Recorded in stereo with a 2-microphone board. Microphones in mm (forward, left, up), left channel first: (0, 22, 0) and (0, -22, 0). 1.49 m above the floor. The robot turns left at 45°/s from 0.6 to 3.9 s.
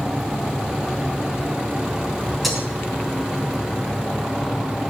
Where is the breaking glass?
5° left (ahead or behind), 4 m; by 2.7 s 5° right (ahead or behind), 4 m.